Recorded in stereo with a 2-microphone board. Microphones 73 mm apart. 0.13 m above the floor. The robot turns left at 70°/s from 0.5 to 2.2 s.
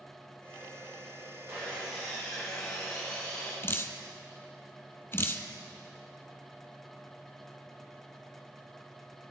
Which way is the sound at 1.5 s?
135° right.